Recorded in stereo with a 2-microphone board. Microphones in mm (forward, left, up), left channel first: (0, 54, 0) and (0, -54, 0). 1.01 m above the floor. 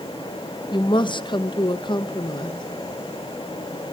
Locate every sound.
0.7 s a woman speaking: 45° left (ahead or behind), 1.0 m